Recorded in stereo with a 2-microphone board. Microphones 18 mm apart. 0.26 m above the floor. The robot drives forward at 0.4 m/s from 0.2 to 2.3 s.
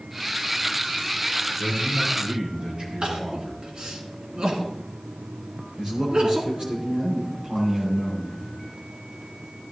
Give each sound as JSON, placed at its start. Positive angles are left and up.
{"t": 1.6, "sound": "a man speaking", "side_deg": -60, "distance_m": 4.5}
{"t": 3.0, "sound": "crying", "side_deg": -70, "distance_m": 2.0}
{"t": 5.8, "sound": "a man speaking", "side_deg": -50, "distance_m": 6.0}